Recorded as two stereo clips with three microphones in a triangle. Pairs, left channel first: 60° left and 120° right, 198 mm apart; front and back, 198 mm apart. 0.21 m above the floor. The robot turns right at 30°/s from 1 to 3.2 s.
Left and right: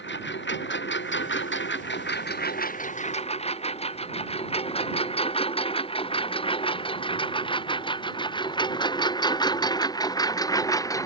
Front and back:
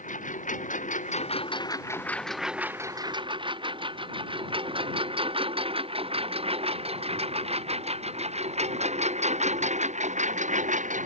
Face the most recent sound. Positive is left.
turn(degrees=135)